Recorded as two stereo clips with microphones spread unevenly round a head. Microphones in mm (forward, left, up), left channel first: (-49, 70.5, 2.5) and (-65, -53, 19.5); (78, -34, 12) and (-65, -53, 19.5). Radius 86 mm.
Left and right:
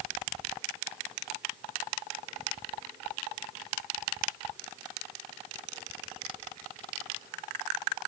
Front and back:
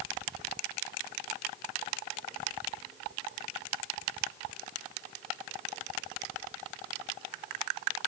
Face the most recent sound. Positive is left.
No sound to turn to.